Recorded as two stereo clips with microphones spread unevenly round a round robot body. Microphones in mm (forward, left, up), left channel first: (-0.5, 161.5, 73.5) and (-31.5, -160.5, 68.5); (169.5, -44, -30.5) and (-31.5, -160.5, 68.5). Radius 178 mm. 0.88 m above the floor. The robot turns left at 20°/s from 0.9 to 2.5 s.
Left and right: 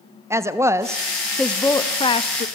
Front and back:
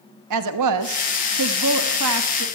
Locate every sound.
0.3 s a woman speaking: 175° right, 1.1 m; by 2.5 s 150° left, 1.1 m